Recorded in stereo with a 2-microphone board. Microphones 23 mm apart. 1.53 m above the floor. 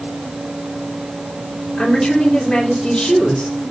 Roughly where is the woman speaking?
Left.